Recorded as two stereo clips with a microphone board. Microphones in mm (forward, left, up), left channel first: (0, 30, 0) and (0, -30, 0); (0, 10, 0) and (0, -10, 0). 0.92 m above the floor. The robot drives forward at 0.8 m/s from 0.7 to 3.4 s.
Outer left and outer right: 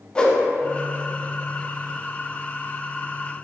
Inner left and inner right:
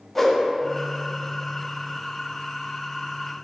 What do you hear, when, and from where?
0.1 s a whoosh: 15° left (ahead or behind), 0.5 m